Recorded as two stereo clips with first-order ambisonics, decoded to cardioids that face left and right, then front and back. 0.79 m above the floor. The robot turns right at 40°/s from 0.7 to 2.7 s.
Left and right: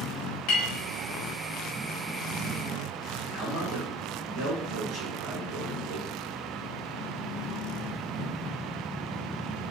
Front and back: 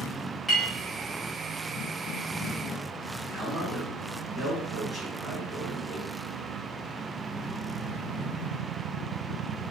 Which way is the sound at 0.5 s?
100° left.